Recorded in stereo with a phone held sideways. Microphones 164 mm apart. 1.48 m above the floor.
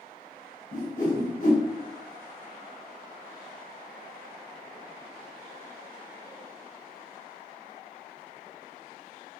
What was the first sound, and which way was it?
A whoosh, 50° left (ahead or behind).